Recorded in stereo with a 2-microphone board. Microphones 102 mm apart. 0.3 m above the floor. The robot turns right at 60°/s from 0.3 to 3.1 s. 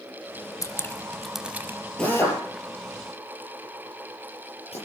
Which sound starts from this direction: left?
Dripping, at 0.6 s.